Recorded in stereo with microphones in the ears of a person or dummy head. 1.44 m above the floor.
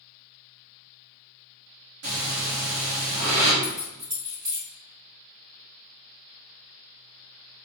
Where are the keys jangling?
20° right (ahead or behind), 0.6 m.